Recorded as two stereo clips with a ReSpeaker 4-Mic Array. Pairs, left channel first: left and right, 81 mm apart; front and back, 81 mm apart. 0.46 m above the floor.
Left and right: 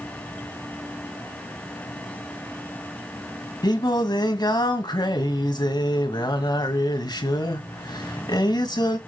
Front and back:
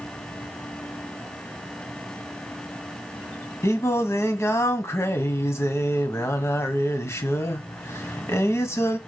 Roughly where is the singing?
Ahead left.